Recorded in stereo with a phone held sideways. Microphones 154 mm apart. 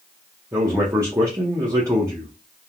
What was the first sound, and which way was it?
A man speaking, 20° right (ahead or behind).